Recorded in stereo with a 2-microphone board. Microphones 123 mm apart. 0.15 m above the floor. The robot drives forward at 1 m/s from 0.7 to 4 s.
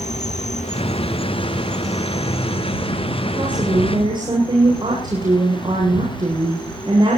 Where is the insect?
80° left, 0.8 m; by 7.2 s 10° left (ahead or behind), 3.5 m.